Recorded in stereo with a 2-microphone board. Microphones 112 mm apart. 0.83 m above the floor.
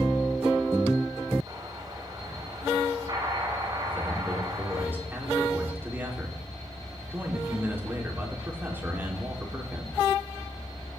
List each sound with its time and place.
1.5 s an explosion: 35° right (ahead or behind), 8 m
3.9 s a man speaking: 20° right (ahead or behind), 2.5 m